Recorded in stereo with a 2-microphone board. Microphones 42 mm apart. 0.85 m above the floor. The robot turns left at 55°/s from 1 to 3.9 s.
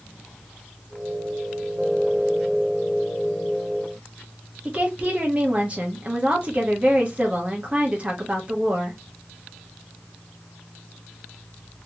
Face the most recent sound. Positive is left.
turn(degrees=-30)  # may be behind; listen again after turning